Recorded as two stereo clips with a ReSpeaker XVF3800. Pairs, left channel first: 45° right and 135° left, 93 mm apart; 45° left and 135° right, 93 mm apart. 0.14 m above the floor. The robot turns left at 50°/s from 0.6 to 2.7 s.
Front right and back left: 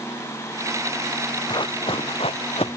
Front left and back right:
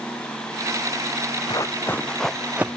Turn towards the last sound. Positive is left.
turn(degrees=-65)